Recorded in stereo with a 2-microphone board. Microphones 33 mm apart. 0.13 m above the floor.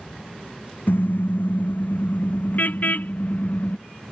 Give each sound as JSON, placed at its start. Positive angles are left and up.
{"t": 0.9, "sound": "a car horn", "side_deg": 75}